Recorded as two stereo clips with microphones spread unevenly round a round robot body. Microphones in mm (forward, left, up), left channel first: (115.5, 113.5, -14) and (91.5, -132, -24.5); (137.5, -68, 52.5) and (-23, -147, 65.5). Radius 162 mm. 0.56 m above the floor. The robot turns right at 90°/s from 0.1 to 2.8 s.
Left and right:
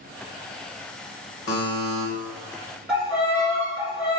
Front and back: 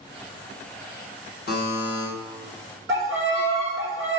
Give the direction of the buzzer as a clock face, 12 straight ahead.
10 o'clock.